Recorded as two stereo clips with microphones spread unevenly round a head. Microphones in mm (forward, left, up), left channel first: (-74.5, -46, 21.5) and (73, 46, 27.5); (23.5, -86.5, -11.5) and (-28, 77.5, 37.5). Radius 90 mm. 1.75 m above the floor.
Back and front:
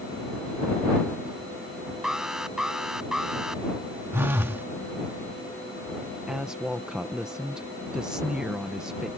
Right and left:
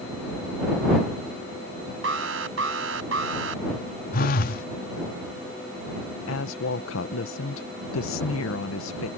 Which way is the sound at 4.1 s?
35° right.